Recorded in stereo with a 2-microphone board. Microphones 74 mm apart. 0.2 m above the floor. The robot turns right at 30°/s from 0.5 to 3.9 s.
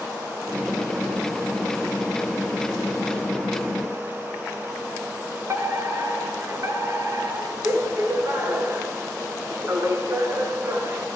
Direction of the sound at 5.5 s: 40° right (ahead or behind).